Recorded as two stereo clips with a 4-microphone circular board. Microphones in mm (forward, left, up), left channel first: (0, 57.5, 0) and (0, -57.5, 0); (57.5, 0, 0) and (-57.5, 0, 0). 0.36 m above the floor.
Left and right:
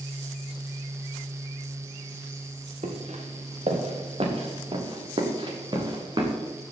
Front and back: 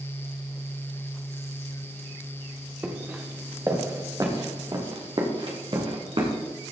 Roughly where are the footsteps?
Right.